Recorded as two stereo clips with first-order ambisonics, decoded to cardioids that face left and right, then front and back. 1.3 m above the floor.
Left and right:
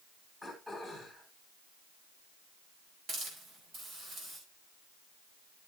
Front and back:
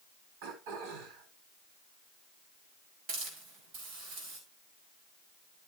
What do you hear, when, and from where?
0.4 s throat clearing: 175° right, 4.5 m
3.1 s a hiss: 145° right, 5.5 m